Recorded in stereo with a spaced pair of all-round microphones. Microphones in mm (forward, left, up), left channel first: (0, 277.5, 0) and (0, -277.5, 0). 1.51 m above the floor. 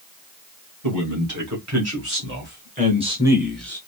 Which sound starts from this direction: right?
A man speaking, at 0.8 s.